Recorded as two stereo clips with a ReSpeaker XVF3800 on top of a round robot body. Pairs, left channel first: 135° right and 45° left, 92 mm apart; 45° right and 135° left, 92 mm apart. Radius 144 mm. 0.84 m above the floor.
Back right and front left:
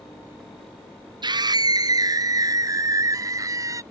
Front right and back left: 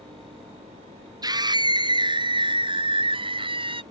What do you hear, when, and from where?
1.2 s a scream: 85° left; by 3.8 s 105° left